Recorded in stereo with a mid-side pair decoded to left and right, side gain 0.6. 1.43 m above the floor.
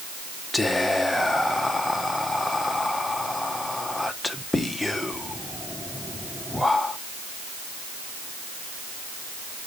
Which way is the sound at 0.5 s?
10° left.